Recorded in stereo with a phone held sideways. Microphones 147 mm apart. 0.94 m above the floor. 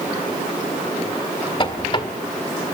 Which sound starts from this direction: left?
A squeak, at 1.6 s.